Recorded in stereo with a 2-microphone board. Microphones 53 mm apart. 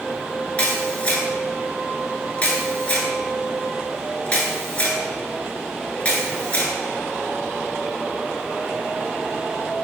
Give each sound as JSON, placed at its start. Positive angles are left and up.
{"t": 0.6, "sound": "a camera shutter", "side_deg": 25, "distance_m": 0.9}